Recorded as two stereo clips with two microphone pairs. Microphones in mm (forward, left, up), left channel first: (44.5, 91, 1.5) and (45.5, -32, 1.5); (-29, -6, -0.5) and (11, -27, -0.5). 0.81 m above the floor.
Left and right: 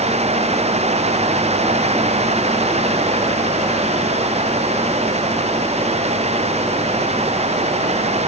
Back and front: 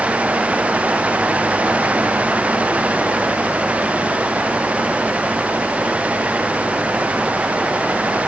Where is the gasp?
I don't hear a gasp.